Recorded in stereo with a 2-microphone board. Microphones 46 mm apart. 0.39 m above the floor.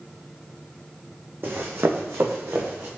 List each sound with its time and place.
1.4 s running footsteps: 50° right (ahead or behind), 1.0 m; by 2.9 s 60° right (ahead or behind), 1.3 m